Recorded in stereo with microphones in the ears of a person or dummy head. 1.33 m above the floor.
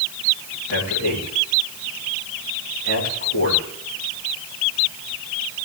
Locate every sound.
0.7 s a man speaking: 80° left, 7 m